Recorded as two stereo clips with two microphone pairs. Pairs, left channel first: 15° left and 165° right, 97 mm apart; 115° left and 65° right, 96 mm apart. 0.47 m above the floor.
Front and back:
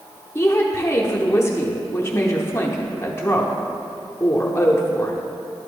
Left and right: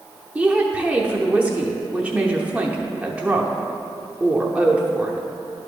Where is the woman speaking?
5° right, 0.8 m.